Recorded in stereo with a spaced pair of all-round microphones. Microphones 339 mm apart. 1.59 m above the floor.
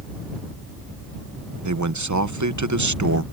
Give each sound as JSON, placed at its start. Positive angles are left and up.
{"t": 1.6, "sound": "a man speaking", "side_deg": -55}